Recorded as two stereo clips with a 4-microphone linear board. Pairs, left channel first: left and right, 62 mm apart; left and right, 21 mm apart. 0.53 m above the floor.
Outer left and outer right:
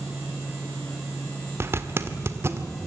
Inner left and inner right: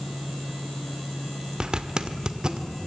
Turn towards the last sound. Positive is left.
turn(degrees=-40)  # may be behind; listen again after turning